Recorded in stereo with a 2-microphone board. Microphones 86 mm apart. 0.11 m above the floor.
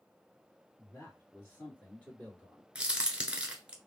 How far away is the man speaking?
About 2.0 m.